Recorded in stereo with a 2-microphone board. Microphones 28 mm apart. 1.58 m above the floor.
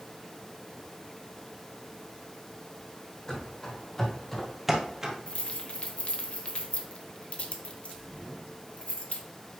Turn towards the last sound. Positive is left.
turn(degrees=55)  # may be behind; listen again after turning